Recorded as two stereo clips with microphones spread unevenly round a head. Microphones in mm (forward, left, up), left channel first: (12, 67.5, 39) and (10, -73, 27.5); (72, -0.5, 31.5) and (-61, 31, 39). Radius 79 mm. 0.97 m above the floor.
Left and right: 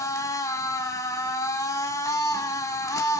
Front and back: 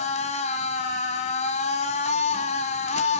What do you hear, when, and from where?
0.0 s a machine running: 25° left, 1.5 m